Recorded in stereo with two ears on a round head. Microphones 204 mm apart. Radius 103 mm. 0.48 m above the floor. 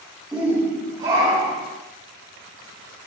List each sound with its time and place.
0.3 s a shout: 5° right (ahead or behind), 1.2 m; by 1.7 s 35° right (ahead or behind), 1.9 m